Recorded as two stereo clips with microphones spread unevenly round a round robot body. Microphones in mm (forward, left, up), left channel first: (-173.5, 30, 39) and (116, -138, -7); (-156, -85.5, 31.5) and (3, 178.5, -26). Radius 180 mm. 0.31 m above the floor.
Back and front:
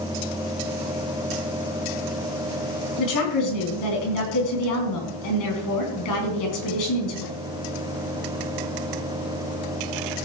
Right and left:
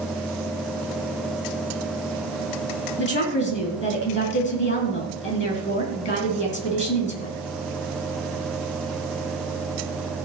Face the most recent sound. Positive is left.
turn(degrees=180)